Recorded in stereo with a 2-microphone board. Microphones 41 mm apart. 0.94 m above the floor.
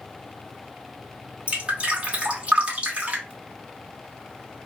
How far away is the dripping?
About 1.1 m.